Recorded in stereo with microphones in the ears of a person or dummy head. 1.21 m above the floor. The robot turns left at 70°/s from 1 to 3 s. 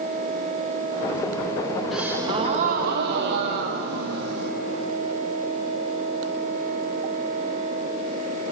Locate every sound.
1.9 s a gasp: 5° right, 0.6 m; by 4.5 s 80° right, 0.6 m